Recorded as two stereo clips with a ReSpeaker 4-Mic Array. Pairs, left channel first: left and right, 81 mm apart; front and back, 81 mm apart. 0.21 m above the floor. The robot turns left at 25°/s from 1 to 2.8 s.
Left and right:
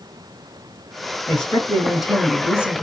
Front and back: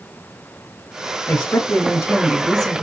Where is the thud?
I don't hear a thud.